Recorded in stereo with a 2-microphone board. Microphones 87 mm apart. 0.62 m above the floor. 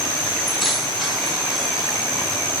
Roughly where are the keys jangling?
Centre.